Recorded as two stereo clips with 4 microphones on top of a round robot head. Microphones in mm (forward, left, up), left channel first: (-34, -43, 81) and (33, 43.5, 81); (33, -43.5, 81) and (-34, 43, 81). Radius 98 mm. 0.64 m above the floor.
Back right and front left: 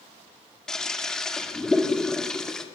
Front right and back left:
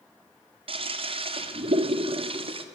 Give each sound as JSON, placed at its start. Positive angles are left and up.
{"t": 0.7, "sound": "a toilet flushing", "azimuth_deg": 145, "distance_m": 2.0}